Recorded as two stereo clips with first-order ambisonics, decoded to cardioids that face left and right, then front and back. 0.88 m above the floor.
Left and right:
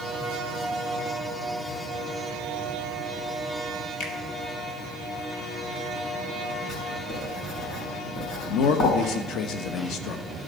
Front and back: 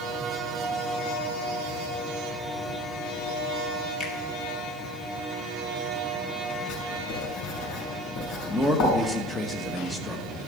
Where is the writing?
35° left, 5.5 m.